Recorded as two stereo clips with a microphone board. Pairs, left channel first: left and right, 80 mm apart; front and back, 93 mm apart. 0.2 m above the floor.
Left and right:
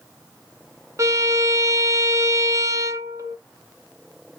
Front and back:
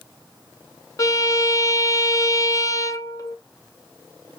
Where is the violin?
45° right, 0.6 m.